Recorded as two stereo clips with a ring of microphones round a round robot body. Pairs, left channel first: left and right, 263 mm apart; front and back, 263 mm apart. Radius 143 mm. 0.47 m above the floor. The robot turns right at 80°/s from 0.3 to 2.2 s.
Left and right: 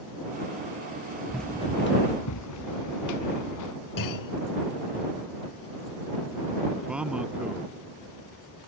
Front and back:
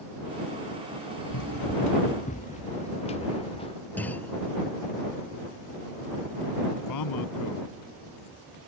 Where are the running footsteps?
5° right; by 3.8 s 75° left.